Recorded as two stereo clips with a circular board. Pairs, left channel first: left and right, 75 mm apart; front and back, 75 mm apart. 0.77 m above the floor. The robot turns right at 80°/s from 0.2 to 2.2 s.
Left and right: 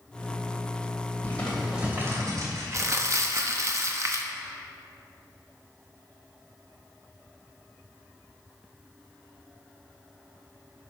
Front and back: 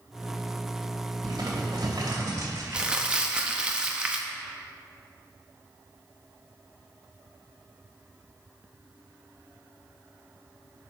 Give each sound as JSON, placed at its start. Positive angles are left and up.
{"t": 1.2, "sound": "crumpling", "azimuth_deg": 150, "distance_m": 2.5}
{"t": 2.7, "sound": "crumpling", "azimuth_deg": -105, "distance_m": 0.9}